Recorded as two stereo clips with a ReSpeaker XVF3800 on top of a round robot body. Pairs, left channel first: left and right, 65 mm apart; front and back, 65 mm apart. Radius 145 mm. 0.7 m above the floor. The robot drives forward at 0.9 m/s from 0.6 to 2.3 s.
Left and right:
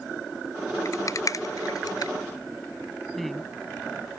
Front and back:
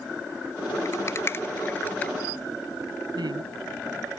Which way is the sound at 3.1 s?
Straight behind.